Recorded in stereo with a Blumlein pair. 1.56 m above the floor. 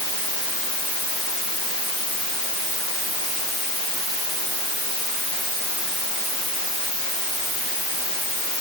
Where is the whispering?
No whispering in this recording.